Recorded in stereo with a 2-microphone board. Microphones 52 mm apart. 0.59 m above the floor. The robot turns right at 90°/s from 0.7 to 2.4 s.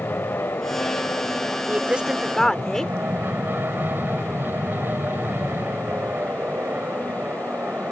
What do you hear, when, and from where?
0.0 s an aircraft: 80° left; by 7.9 s 125° right
1.7 s a woman speaking: 50° right; by 2.9 s 15° left